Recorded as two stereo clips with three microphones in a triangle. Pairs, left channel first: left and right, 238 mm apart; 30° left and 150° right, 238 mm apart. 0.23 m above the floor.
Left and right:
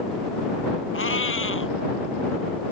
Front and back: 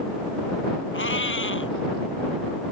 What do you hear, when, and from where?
0.9 s a cat meowing: 60° left